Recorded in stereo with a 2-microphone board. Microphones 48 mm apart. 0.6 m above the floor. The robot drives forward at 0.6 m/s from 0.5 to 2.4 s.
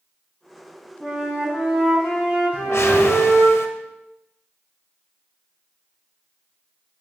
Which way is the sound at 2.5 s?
75° left (ahead or behind).